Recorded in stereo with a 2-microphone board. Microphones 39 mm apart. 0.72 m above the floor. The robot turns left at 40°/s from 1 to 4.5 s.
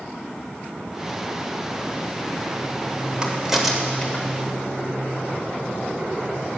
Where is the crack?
25° right (ahead or behind), 1.2 m; by 4.2 s 15° left (ahead or behind), 1.2 m.